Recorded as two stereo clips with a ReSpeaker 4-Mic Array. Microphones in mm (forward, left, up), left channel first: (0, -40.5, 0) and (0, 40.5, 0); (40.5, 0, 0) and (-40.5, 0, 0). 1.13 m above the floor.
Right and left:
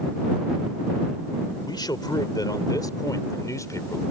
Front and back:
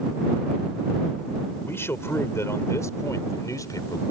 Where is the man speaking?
60° right; by 4.0 s 40° right.